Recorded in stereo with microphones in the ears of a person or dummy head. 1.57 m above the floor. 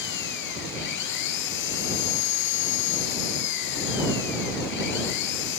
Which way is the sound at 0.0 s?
65° left (ahead or behind).